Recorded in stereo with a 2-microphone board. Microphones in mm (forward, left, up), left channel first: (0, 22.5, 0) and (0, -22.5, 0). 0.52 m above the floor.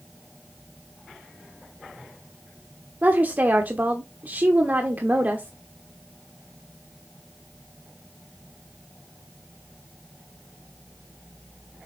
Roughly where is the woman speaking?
Right.